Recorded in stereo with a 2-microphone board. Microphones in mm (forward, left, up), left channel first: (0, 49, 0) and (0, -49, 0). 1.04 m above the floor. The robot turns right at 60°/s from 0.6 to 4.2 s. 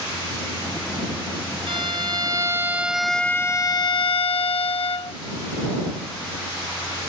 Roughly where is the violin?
Right.